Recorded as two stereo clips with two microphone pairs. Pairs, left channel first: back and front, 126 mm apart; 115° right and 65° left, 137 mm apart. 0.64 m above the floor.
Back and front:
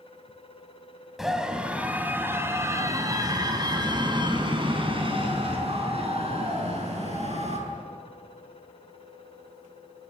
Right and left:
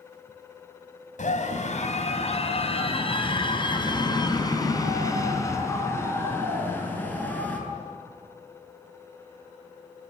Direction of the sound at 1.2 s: 90° right.